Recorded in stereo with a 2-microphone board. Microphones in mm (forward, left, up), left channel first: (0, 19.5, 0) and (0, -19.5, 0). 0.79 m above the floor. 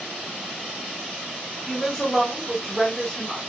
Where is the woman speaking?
5° left (ahead or behind), 1.1 m.